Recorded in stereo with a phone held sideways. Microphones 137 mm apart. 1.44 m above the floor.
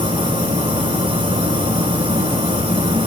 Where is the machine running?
35° right (ahead or behind), 6 m.